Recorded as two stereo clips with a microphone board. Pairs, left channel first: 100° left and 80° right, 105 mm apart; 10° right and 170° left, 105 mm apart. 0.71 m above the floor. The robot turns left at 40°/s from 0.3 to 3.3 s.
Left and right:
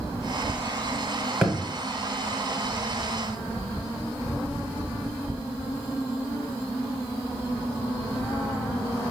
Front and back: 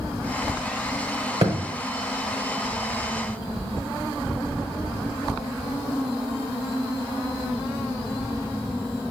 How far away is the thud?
About 1.2 m.